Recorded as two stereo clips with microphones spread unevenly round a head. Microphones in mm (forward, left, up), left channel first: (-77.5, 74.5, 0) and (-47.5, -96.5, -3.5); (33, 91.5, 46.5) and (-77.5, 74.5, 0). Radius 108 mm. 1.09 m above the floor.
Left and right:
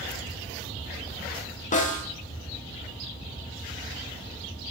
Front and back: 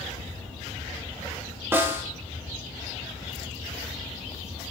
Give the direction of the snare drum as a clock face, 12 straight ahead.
7 o'clock.